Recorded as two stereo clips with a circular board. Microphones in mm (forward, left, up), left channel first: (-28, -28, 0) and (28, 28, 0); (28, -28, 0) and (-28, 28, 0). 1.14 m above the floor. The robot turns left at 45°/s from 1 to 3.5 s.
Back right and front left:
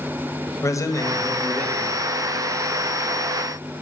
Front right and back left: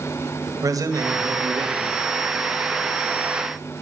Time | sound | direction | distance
0.6 | a man speaking | 175° left | 1.4 m